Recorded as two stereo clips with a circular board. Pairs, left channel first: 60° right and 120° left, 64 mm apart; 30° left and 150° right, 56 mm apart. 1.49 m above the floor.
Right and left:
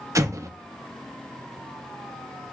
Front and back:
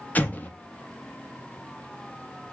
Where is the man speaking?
No man speaking in this recording.